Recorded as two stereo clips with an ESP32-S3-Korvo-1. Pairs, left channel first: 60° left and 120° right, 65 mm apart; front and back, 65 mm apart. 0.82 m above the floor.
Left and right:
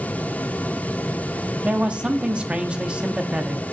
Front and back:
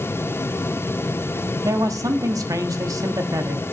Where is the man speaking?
170° left, 1.1 m.